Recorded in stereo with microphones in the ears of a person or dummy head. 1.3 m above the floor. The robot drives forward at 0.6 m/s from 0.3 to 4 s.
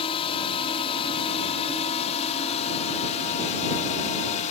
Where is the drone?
30° left (ahead or behind); by 4.5 s 35° left (ahead or behind).